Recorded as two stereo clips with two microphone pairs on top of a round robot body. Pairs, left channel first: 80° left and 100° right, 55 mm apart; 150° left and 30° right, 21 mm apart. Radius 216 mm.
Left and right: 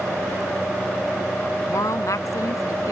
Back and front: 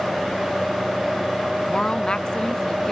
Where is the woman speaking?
95° left; by 2.9 s 80° left.